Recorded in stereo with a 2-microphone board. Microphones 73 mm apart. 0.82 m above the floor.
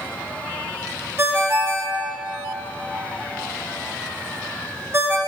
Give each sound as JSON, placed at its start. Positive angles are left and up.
{"t": 1.2, "sound": "a ringtone", "side_deg": -35, "distance_m": 0.9}